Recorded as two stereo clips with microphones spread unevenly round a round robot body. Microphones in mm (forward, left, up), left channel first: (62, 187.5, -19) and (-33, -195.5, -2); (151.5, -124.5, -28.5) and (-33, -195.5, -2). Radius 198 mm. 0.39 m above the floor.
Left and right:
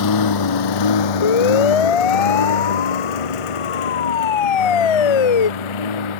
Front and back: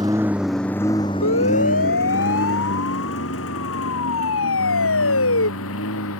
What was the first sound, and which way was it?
A lawn mower, 120° left.